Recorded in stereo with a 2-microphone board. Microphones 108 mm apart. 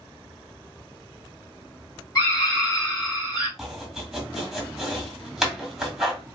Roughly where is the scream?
Left.